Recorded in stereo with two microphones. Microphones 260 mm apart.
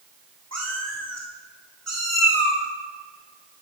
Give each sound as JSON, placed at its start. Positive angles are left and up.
{"t": 0.5, "sound": "a cat meowing", "side_deg": -80, "distance_m": 3.0}